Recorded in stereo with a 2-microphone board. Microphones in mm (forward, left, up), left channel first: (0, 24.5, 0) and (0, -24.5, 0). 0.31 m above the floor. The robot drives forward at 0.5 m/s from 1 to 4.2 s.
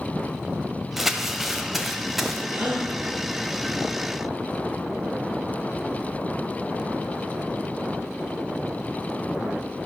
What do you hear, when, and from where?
1.0 s crumpling: 5° right (ahead or behind), 1.2 m
2.5 s a gasp: 40° right (ahead or behind), 4 m; by 2.9 s 35° right (ahead or behind), 4 m